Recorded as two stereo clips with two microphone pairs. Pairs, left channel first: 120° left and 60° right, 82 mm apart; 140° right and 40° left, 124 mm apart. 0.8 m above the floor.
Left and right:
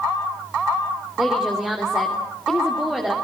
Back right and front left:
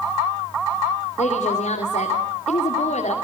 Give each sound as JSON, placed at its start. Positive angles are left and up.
{"t": 1.2, "sound": "a woman speaking", "azimuth_deg": -140, "distance_m": 2.5}